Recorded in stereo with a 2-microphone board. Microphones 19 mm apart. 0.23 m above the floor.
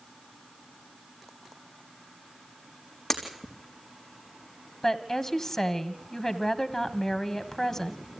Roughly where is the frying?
I don't hear frying.